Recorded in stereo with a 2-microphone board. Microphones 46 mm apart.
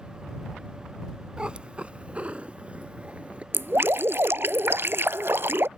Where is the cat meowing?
20° right (ahead or behind); by 3.4 s 30° right (ahead or behind).